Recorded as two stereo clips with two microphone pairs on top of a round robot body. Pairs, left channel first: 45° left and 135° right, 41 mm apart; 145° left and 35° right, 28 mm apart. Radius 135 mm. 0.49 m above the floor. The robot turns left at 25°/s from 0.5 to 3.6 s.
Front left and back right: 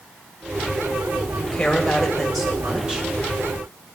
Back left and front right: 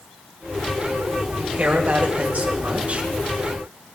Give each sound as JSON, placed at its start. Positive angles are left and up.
{"t": 1.4, "sound": "a woman speaking", "azimuth_deg": -25, "distance_m": 3.0}